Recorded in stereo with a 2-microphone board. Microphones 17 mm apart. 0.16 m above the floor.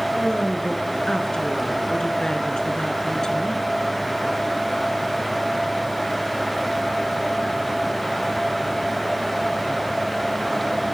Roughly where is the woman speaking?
Left.